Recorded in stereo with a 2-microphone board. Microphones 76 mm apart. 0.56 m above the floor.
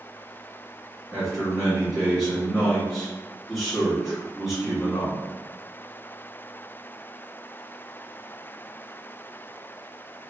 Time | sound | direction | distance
1.1 | a man speaking | centre (ahead or behind) | 1.4 m